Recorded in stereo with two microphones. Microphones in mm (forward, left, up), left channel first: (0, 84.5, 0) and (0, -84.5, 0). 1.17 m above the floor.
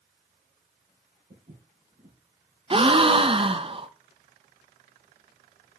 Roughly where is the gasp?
Right.